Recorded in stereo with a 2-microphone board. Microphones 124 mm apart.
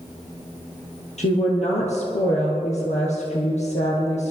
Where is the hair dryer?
I don't hear a hair dryer.